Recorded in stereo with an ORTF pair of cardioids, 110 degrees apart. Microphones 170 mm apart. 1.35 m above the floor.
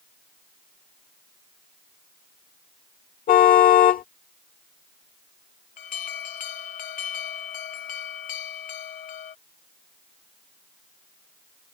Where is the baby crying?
No baby crying in this recording.